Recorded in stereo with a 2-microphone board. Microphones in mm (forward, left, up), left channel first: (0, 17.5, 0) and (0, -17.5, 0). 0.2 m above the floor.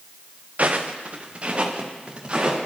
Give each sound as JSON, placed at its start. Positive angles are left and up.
{"t": 0.6, "sound": "footsteps", "side_deg": -45, "distance_m": 1.5}